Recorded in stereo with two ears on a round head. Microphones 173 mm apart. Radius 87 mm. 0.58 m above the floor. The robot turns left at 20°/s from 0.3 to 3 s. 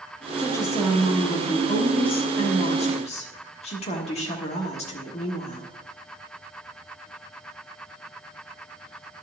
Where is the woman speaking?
155° left, 1.3 m; by 5.7 s 105° left, 1.3 m.